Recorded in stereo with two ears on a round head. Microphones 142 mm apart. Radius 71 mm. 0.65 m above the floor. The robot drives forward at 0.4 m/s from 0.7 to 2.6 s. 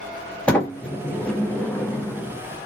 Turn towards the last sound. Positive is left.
turn(degrees=10)  # may be behind; listen again after turning